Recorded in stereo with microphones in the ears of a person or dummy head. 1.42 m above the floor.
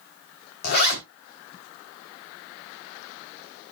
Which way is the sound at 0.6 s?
55° left (ahead or behind).